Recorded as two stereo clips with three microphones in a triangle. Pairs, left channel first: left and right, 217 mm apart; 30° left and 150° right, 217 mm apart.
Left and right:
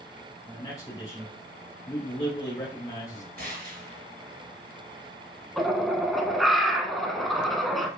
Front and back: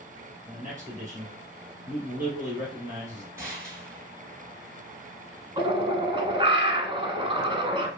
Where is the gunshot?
80° right, 2.5 m.